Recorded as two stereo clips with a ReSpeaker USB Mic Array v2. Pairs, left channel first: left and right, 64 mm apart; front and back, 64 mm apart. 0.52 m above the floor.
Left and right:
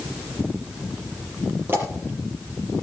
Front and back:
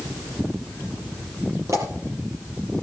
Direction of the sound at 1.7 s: 145° right.